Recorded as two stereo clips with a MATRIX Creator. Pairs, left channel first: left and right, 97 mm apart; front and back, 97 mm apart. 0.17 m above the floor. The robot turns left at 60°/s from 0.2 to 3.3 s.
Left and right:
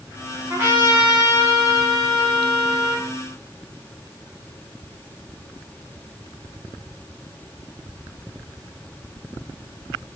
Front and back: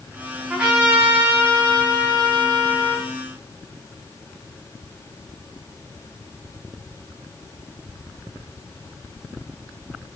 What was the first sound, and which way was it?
A trumpet, 105° right.